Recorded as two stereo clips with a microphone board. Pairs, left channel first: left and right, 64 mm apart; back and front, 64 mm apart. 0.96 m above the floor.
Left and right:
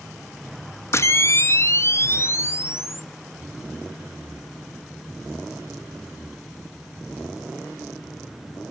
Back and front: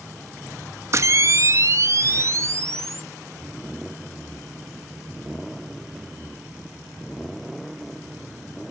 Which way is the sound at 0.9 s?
40° left.